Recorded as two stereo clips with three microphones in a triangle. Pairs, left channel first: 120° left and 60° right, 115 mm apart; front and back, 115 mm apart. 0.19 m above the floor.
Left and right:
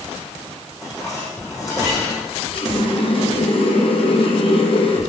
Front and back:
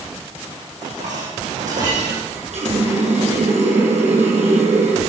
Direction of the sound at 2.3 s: 160° left.